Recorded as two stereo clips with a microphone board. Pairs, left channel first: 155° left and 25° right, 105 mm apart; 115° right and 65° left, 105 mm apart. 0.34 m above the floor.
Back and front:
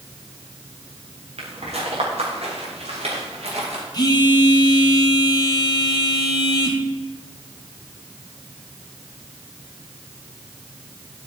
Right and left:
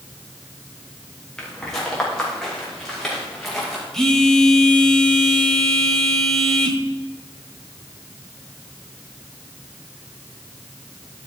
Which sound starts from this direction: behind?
A phone buzzing, at 3.9 s.